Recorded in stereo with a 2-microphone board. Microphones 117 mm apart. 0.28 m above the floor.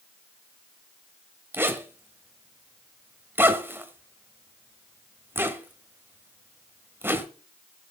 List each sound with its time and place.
1.5 s a zipper: 20° right (ahead or behind), 1.4 m